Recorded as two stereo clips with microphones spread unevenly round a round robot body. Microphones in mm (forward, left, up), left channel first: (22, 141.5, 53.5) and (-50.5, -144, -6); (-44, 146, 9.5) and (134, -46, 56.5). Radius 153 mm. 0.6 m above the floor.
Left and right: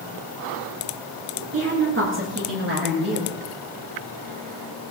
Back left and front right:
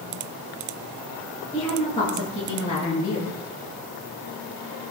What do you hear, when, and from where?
1.5 s a woman speaking: 150° right, 8.5 m; by 3.3 s 160° right, 10 m